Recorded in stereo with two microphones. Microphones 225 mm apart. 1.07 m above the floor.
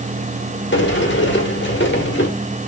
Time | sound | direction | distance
0.7 | a sliding door | 55° left (ahead or behind) | 1.8 m